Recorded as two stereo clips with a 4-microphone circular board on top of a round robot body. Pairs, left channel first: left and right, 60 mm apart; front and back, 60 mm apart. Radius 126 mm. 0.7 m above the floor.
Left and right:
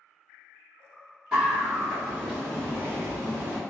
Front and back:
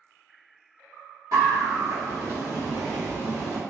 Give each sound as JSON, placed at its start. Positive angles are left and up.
{"t": 1.3, "sound": "a scream", "azimuth_deg": -165, "distance_m": 1.4}